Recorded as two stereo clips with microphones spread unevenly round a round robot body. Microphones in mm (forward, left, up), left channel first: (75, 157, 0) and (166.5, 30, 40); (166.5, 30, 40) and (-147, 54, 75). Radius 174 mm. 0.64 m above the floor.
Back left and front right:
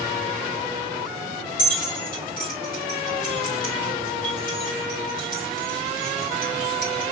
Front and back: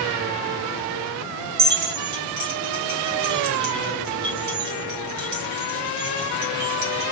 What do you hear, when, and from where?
1.6 s keys jangling: 145° left, 1.9 m